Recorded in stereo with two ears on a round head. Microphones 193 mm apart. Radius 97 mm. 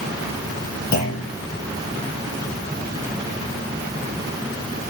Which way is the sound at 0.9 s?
45° left (ahead or behind).